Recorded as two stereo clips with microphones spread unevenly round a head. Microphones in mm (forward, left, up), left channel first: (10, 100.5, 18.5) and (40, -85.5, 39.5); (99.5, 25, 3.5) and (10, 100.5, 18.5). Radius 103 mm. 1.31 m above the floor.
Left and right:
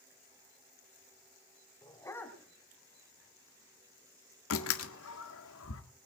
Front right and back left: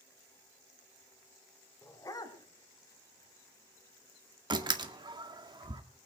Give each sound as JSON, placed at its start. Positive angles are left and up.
{"t": 1.8, "sound": "a dog barking", "azimuth_deg": 30, "distance_m": 1.9}
{"t": 4.5, "sound": "a door slam", "azimuth_deg": 90, "distance_m": 1.7}